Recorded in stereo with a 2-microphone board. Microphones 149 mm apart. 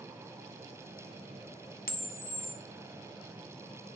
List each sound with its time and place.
1.9 s a camera shutter: 80° left, 0.6 m